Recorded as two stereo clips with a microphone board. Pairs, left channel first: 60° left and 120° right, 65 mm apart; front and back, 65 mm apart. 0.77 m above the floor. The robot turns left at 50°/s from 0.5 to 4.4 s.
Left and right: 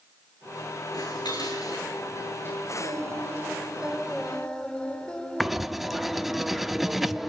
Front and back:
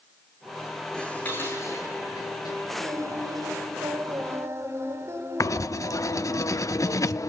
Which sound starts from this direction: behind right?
Singing, at 2.8 s.